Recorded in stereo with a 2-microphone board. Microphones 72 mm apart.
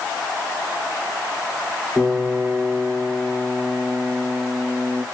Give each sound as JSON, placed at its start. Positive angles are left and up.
{"t": 2.0, "sound": "a piano", "side_deg": 30, "distance_m": 2.5}